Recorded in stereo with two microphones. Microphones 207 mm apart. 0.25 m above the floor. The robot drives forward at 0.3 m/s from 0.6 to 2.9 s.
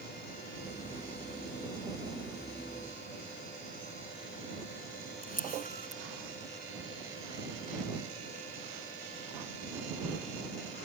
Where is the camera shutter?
45° left (ahead or behind).